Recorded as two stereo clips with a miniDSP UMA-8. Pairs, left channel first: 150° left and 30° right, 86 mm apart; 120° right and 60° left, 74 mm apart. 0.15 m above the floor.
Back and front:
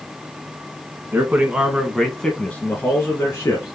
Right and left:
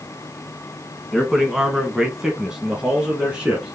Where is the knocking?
I don't hear knocking.